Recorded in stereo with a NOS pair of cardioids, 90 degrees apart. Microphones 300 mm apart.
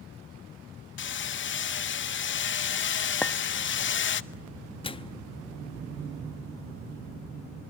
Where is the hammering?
40° left, 0.7 m.